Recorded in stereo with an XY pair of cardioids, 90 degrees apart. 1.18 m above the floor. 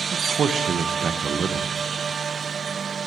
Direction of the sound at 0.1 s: 60° right.